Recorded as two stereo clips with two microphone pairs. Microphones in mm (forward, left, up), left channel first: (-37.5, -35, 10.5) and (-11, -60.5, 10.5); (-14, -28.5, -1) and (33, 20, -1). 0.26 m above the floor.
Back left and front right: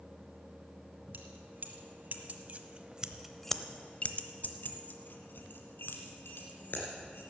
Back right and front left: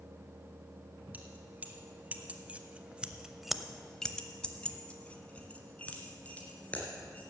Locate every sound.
1.1 s keys jangling: 20° right, 1.7 m; by 7.2 s 155° left, 2.5 m